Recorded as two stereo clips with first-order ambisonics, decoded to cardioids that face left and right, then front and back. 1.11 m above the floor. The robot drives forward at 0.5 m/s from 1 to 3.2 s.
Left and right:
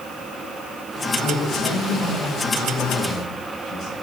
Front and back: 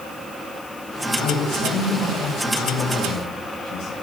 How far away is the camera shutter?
I don't hear a camera shutter.